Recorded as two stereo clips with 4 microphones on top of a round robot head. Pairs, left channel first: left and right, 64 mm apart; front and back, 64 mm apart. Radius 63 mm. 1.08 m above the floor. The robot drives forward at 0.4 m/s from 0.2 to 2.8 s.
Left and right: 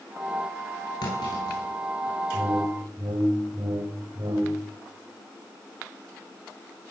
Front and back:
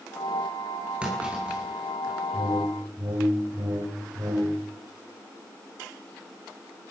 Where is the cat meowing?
No cat meowing in this recording.